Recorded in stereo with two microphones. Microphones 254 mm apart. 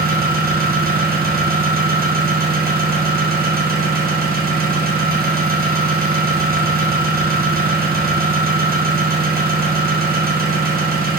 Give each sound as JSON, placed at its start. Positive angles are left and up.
{"t": 0.0, "sound": "an engine running", "side_deg": -35, "distance_m": 0.7}